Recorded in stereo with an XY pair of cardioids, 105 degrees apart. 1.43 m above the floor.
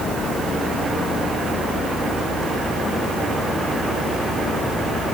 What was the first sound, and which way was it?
Only background noise.